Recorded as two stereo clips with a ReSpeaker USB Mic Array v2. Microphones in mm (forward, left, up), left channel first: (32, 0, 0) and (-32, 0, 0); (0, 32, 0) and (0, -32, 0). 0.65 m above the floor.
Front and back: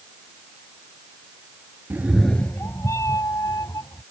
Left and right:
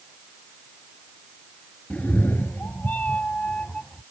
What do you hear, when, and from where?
1.9 s a cat meowing: 150° left; by 4.0 s 15° left